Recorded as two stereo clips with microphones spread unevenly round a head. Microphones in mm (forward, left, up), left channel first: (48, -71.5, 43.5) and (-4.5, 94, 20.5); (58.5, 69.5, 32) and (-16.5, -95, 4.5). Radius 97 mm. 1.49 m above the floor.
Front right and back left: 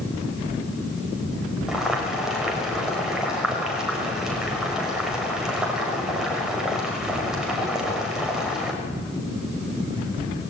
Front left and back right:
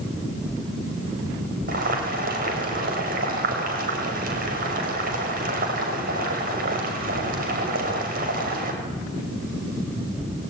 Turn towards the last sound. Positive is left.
turn(degrees=-165)